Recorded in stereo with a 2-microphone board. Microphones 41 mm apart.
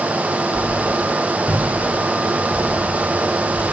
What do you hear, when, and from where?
0.5 s a whoosh: 80° left, 9.5 m